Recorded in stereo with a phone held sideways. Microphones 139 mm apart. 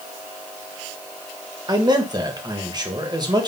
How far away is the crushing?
No crushing in this recording.